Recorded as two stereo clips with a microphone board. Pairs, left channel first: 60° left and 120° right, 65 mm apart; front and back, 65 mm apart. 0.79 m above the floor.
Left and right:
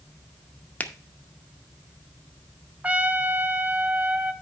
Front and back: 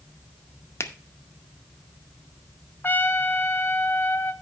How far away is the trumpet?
About 0.5 m.